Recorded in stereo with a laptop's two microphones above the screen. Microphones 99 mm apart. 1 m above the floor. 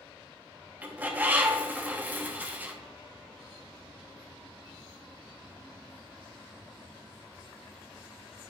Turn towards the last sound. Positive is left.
turn(degrees=-15)  # may be behind; listen again after turning